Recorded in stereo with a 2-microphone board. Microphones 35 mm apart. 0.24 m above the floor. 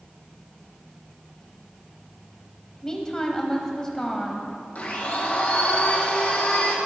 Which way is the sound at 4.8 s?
50° left (ahead or behind).